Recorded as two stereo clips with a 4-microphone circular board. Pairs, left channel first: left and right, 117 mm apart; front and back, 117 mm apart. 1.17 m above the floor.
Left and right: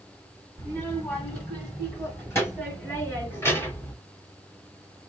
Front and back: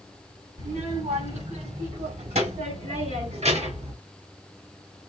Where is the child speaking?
160° left, 4 m.